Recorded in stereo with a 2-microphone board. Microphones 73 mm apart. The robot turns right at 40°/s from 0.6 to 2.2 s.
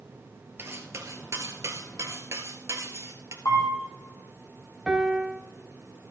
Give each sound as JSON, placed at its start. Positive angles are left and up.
{"t": 0.6, "sound": "cutlery clinking", "azimuth_deg": -130, "distance_m": 1.3}
{"t": 3.5, "sound": "a camera shutter", "side_deg": 60, "distance_m": 4.0}
{"t": 4.9, "sound": "a piano", "side_deg": -5, "distance_m": 1.0}